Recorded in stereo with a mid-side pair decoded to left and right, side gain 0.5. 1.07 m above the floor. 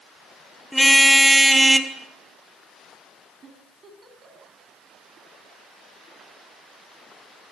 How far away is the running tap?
No running tap in this recording.